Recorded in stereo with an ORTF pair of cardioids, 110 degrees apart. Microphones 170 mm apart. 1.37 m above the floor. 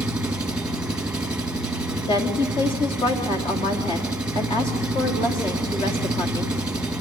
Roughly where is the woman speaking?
Ahead left.